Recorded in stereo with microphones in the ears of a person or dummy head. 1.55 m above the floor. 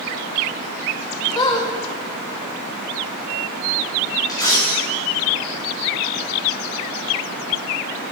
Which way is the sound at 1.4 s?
30° left (ahead or behind).